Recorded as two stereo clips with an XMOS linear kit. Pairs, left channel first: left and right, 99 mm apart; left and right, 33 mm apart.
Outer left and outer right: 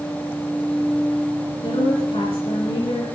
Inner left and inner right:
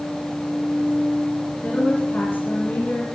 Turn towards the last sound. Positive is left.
turn(degrees=70)  # may be behind; listen again after turning